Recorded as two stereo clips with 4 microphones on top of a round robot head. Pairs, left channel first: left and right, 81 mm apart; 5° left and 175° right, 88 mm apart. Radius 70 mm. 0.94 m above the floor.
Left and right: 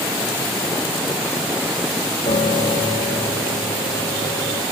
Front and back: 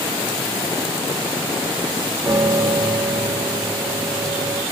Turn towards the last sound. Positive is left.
turn(degrees=125)